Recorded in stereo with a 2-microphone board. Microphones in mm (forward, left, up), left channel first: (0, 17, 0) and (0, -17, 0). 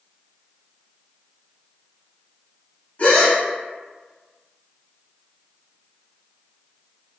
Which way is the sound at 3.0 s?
45° left (ahead or behind).